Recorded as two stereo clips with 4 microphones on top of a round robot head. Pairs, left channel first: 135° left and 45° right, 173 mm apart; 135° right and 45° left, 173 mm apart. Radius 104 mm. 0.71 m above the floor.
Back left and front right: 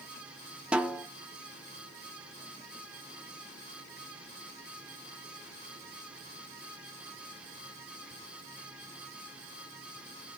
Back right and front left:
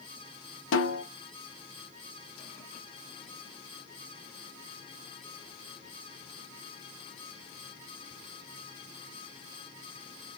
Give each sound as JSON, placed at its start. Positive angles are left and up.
{"t": 0.7, "sound": "a snare drum", "azimuth_deg": -130, "distance_m": 0.7}